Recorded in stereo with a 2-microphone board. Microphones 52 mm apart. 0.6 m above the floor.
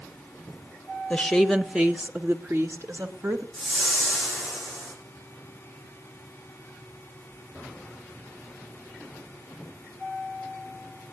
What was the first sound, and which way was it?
A woman speaking, 20° left (ahead or behind).